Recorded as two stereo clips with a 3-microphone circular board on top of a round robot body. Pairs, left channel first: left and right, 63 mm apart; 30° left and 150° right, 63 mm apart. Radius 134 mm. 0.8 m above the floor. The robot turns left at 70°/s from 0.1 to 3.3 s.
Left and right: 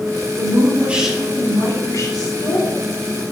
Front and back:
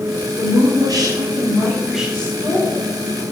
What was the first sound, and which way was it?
A woman speaking, 125° right.